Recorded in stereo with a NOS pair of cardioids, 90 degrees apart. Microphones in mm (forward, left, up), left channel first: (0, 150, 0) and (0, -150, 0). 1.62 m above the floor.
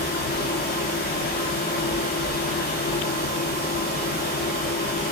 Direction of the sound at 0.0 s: 35° left.